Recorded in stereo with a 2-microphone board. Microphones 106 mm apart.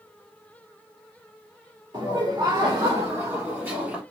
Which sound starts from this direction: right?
Laughter, at 1.9 s.